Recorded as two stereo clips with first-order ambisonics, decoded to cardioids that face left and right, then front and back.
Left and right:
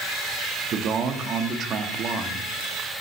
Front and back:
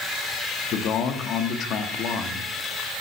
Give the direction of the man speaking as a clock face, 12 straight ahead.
1 o'clock.